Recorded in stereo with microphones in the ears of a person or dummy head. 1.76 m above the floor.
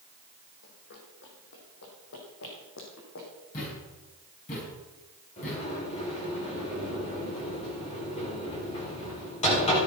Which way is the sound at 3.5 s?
45° left (ahead or behind).